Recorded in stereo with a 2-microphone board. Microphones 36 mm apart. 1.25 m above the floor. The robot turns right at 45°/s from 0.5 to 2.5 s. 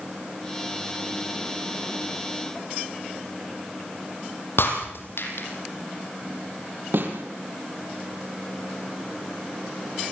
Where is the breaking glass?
80° left, 6.5 m.